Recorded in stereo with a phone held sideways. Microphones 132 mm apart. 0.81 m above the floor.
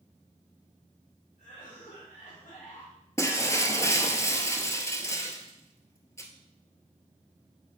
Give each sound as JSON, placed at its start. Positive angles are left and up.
{"t": 1.4, "sound": "a cough", "side_deg": 70, "distance_m": 4.0}
{"t": 3.2, "sound": "breaking glass", "side_deg": 20, "distance_m": 1.0}